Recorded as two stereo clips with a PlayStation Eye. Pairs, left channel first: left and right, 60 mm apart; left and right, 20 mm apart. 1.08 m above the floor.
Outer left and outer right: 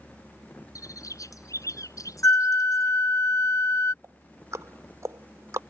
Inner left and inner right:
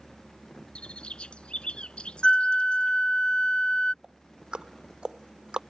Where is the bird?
65° left (ahead or behind).